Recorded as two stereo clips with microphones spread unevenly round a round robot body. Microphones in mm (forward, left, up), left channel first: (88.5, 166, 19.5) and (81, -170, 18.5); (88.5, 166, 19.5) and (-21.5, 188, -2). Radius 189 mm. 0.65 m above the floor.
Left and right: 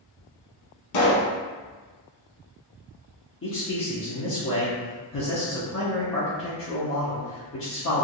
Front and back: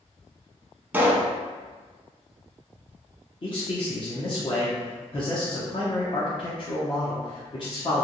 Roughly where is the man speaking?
Ahead left.